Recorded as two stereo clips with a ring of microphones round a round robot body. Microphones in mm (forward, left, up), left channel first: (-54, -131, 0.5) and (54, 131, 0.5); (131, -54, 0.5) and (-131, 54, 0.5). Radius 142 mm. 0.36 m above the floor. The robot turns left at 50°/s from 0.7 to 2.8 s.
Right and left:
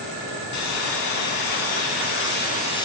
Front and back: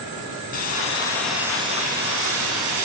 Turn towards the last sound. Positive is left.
turn(degrees=175)